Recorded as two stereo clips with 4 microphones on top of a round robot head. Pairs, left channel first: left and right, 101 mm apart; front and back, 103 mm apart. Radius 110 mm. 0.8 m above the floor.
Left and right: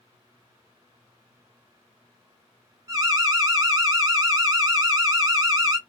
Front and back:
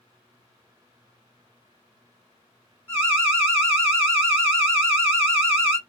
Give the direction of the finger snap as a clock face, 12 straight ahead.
No finger snap in this recording.